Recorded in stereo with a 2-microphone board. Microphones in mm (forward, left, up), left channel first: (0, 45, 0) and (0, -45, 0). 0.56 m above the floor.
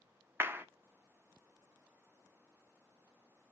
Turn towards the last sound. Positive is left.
turn(degrees=-25)  # may be behind; listen again after turning